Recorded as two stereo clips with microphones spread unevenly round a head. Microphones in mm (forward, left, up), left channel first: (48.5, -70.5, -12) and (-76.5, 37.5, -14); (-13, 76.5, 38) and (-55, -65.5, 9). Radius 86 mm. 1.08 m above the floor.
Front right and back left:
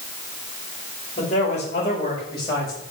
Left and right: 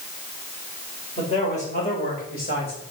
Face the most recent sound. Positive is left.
turn(degrees=35)